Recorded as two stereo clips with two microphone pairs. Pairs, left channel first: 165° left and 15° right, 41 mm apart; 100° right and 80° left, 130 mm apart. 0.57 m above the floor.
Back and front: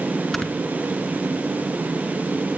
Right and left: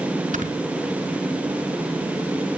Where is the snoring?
85° left, 3 m.